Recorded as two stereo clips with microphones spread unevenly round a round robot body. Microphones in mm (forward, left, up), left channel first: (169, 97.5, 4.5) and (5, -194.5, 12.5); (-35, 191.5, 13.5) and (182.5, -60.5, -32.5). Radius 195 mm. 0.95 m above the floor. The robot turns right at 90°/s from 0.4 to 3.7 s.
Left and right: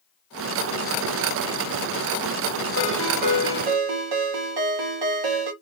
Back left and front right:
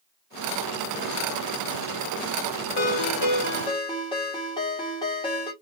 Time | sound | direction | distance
2.8 | a ringtone | 125° left | 1.1 m